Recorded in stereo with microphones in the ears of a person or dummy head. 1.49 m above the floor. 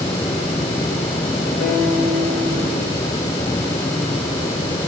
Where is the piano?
75° left (ahead or behind), 2.5 m.